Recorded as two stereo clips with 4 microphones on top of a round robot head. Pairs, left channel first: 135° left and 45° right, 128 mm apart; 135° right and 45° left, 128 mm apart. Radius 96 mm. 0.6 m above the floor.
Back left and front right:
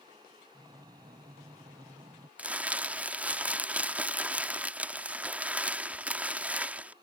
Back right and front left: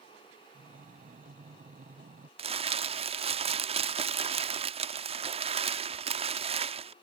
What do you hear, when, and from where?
0.5 s breathing: 15° left
2.4 s crumpling: 30° left